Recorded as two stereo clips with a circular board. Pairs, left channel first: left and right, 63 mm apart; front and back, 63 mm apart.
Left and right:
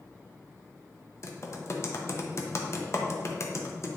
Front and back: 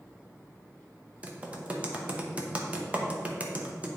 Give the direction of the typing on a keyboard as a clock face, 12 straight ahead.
8 o'clock.